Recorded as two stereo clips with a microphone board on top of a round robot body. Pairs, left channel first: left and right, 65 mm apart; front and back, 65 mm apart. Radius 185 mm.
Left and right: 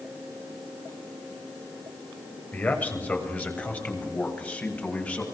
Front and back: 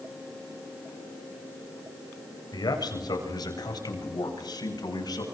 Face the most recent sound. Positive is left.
turn(degrees=20)